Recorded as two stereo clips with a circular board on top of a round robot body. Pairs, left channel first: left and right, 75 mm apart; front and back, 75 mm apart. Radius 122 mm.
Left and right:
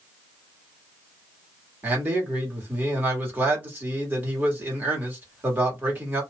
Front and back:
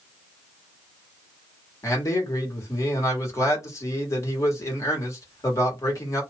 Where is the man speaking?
30° right, 2 m.